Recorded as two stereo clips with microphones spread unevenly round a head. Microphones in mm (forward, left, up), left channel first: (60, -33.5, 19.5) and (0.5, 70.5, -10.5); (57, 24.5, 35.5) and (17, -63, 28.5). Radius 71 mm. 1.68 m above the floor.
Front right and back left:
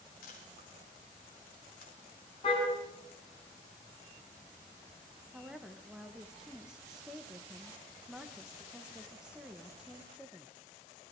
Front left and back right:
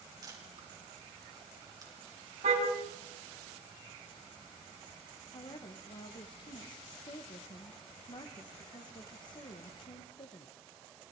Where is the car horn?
110° right, 6.5 m.